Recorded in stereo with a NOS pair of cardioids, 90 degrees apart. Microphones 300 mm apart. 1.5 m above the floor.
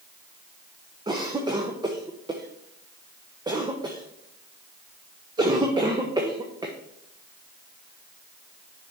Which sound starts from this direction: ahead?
A cough, at 1.1 s.